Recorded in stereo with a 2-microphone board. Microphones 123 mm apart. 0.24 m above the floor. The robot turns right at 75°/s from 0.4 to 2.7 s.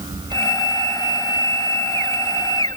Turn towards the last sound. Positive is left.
No sound to turn to.